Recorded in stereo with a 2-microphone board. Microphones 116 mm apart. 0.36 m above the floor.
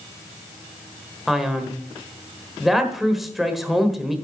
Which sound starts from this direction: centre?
A man speaking, at 1.3 s.